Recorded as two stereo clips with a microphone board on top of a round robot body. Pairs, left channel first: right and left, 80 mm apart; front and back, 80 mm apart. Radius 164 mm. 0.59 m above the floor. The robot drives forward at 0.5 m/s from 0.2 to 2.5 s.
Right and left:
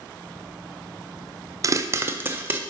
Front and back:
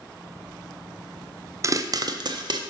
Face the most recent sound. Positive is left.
turn(degrees=155)